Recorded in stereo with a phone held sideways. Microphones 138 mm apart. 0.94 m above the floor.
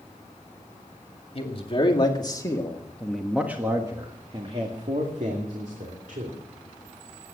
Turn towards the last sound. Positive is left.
turn(degrees=-70)  # may be behind; listen again after turning